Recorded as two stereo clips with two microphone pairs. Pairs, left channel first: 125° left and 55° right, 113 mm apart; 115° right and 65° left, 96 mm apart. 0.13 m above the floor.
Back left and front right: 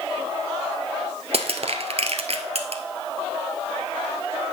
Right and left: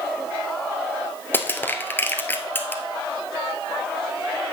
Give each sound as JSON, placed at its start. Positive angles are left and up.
{"t": 1.3, "sound": "crushing", "azimuth_deg": -50, "distance_m": 1.2}